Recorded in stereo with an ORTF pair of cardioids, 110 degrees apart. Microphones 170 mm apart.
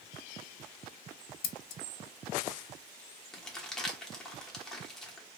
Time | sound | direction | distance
1.4 | scissors | 55° left | 0.5 m
3.3 | crumpling | 5° left | 1.0 m